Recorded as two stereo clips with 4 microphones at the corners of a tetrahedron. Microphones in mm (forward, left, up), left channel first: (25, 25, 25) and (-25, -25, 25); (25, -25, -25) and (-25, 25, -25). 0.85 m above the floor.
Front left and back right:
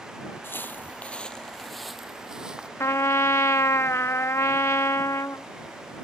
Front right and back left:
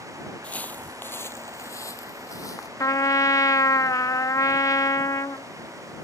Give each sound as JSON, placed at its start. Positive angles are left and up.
{"t": 0.4, "sound": "footsteps", "azimuth_deg": 15}
{"t": 2.8, "sound": "a trumpet", "azimuth_deg": -5}